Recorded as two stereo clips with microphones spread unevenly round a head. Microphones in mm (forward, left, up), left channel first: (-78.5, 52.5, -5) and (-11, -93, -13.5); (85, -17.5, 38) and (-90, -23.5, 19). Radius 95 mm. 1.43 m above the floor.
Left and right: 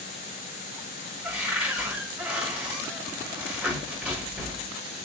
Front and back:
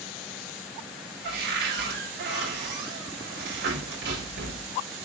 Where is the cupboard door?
150° right, 4.5 m.